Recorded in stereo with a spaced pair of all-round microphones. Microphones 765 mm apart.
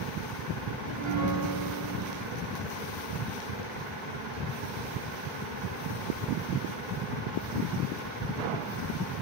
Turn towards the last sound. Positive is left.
turn(degrees=-40)  # may be behind; listen again after turning